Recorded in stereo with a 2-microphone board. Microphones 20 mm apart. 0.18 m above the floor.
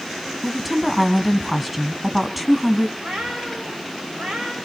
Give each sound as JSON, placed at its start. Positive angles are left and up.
{"t": 0.4, "sound": "a woman speaking", "side_deg": -5, "distance_m": 1.2}
{"t": 3.0, "sound": "a cat meowing", "side_deg": -80, "distance_m": 6.5}